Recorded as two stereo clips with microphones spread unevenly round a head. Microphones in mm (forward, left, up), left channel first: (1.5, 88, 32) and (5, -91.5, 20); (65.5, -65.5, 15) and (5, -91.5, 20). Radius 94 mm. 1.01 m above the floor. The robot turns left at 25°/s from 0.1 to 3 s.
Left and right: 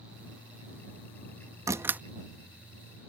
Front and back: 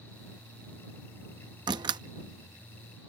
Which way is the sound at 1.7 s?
165° right.